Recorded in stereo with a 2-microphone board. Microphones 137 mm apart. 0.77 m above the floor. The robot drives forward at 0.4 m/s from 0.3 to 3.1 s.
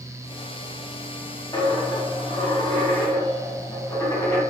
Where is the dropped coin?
30° left (ahead or behind), 0.6 m; by 4.4 s 20° left (ahead or behind), 0.9 m.